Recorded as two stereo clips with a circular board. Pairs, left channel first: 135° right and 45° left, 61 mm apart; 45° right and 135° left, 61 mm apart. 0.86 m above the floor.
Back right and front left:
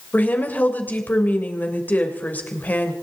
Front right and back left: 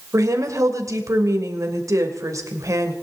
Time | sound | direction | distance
0.1 | a woman speaking | 160° left | 3 m